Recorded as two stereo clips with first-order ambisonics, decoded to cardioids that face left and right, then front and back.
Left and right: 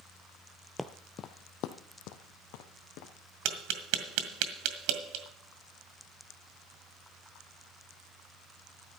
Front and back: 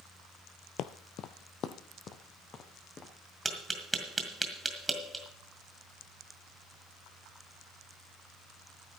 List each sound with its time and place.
0.8 s footsteps: straight ahead, 0.6 m; by 3.1 s 65° left, 2.5 m
3.5 s tapping: 100° right, 1.6 m